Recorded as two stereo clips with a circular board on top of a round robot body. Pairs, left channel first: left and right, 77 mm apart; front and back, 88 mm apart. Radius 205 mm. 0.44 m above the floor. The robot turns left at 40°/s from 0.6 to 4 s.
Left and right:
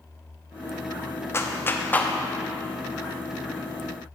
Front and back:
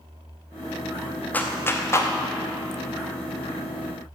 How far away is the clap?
About 1.1 m.